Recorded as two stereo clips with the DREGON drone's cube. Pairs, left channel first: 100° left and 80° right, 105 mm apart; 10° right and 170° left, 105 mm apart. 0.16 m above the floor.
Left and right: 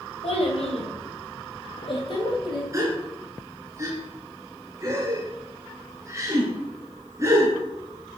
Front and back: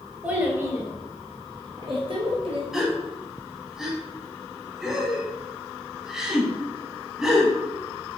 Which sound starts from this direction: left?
A child speaking, at 0.2 s.